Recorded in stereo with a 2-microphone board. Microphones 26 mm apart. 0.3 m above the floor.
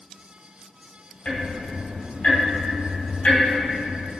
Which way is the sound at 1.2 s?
45° left (ahead or behind).